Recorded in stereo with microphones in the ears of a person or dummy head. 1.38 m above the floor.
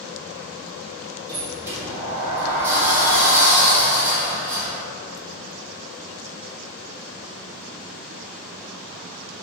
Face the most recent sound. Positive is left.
turn(degrees=-15)  # may be behind; listen again after turning